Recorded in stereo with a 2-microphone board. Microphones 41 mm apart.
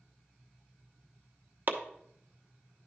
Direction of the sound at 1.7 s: 45° right (ahead or behind).